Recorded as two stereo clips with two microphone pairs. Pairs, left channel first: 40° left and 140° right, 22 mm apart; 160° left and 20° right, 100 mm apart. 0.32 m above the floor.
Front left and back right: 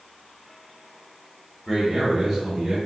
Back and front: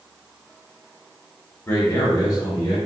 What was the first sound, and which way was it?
A man speaking, straight behind.